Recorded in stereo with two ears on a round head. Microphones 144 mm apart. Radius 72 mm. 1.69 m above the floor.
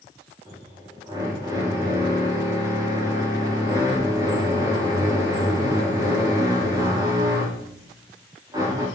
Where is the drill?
20° right (ahead or behind), 5 m.